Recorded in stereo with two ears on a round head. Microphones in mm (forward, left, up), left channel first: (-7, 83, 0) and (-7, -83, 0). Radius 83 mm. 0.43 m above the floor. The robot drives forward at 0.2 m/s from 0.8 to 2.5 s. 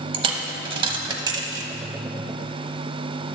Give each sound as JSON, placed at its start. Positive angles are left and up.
{"t": 0.1, "sound": "a dropped coin", "side_deg": -30, "distance_m": 0.8}